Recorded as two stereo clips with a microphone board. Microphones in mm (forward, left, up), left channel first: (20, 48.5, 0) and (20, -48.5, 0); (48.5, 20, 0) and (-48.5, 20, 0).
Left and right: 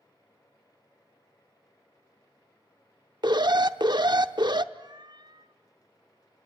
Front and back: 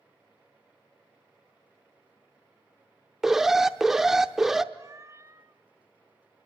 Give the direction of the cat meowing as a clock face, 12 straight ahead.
4 o'clock.